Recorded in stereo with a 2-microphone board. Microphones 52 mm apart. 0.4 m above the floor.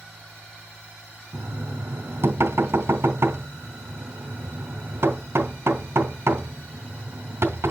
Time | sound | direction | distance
1.3 | knocking | 60° right (ahead or behind) | 2.5 m